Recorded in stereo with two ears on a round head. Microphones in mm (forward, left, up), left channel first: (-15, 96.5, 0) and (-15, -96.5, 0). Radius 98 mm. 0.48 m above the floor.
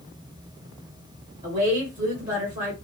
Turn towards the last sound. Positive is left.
turn(degrees=-35)  # may be behind; listen again after turning